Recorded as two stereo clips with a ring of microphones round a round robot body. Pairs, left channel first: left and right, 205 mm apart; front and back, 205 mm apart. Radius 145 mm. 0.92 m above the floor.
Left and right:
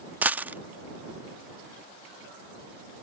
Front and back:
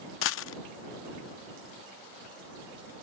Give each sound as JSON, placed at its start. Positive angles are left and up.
{"t": 0.2, "sound": "a dropped coin", "azimuth_deg": -5}